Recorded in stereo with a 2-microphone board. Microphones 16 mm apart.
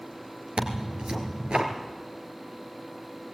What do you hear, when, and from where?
0.6 s tearing paper: 80° right, 2 m